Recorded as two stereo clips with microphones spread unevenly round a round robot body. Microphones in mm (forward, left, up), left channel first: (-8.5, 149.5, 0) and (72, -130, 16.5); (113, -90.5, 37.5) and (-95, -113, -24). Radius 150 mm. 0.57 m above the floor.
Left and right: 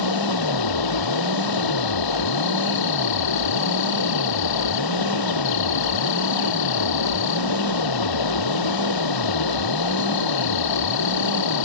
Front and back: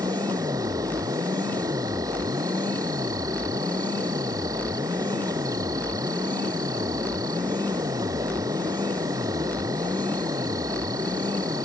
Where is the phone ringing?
No phone ringing in this recording.